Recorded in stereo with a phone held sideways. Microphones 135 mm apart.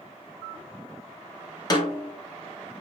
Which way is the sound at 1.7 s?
30° left (ahead or behind).